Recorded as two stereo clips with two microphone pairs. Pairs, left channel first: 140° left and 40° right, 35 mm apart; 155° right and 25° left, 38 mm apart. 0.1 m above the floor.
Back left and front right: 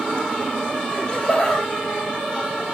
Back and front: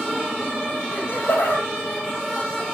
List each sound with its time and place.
0.9 s laughter: 150° right, 3 m